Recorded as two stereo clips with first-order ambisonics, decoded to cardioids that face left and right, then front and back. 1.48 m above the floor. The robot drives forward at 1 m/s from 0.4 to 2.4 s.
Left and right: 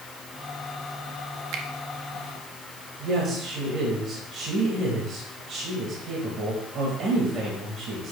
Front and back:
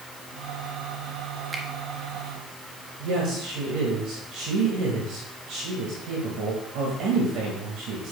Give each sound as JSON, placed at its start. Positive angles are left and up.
{"t": 1.5, "sound": "a finger snap", "azimuth_deg": -105, "distance_m": 1.1}
{"t": 3.0, "sound": "a woman speaking", "azimuth_deg": -145, "distance_m": 2.0}